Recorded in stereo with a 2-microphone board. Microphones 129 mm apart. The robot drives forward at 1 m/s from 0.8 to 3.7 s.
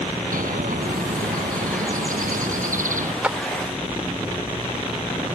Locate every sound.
0.3 s a bird: 80° right; by 3.1 s 70° right (ahead or behind)
3.2 s a clap: 10° right (ahead or behind)